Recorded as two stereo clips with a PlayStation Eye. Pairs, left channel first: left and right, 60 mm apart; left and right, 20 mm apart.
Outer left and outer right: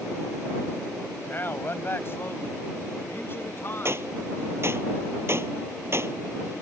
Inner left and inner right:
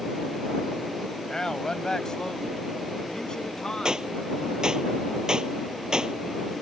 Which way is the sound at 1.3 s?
35° left (ahead or behind).